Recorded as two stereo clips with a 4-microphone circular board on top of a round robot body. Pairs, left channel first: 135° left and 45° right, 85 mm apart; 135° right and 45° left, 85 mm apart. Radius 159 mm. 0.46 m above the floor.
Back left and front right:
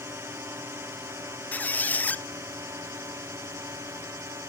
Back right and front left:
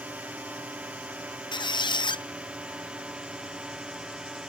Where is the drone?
15° right; by 4.5 s 30° right.